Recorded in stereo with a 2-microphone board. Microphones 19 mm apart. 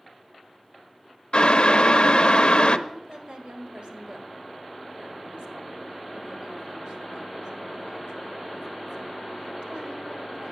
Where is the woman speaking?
65° right (ahead or behind), 1.8 m.